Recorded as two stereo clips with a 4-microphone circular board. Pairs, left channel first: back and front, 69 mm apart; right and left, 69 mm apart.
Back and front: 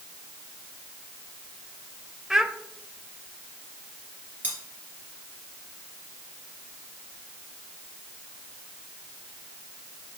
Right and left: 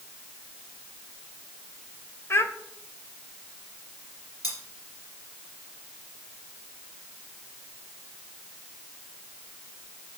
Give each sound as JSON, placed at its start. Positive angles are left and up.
{"t": 2.3, "sound": "a child speaking", "azimuth_deg": -80, "distance_m": 0.6}
{"t": 4.4, "sound": "cutlery clinking", "azimuth_deg": -65, "distance_m": 3.0}